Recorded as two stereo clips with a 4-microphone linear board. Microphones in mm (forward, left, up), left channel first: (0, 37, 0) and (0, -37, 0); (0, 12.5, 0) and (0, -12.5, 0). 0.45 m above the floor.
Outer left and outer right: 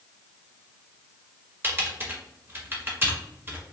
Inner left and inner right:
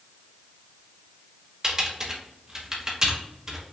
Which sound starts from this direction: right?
Typing on a keyboard, at 1.6 s.